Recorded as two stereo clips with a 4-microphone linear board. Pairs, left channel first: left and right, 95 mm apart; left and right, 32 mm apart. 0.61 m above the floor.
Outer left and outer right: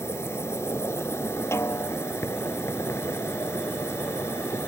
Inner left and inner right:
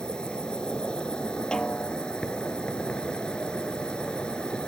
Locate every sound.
0.0 s an insect: 30° left (ahead or behind)
1.5 s a snare drum: 25° left (ahead or behind)